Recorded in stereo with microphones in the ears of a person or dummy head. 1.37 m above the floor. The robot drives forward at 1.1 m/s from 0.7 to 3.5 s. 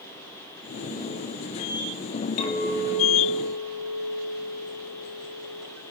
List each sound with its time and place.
2.4 s a clink: 45° left (ahead or behind), 1.9 m; by 5.7 s 75° left (ahead or behind), 1.4 m